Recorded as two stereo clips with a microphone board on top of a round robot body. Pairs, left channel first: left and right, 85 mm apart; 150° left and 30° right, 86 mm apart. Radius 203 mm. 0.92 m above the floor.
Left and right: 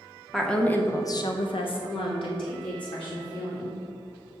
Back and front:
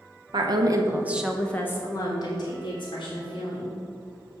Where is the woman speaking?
Straight ahead, 1.3 m; by 3.8 s 125° left, 3 m.